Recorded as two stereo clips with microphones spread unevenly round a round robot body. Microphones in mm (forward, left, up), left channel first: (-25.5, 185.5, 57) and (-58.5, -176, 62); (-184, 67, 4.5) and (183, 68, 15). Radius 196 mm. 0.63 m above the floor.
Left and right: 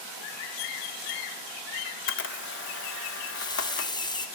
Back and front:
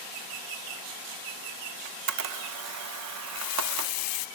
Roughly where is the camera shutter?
Ahead left.